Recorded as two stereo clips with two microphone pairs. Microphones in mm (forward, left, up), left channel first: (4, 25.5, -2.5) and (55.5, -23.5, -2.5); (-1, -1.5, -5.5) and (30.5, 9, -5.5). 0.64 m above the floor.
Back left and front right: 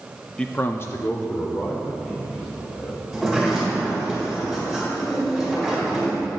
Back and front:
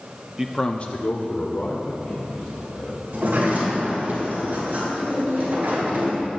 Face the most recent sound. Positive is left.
turn(degrees=45)